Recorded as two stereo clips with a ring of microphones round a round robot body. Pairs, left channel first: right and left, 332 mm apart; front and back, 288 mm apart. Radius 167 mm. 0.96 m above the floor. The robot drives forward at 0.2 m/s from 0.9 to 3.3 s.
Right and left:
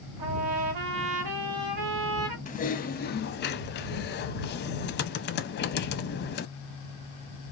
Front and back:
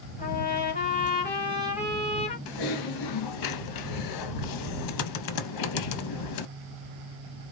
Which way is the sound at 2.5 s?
20° right.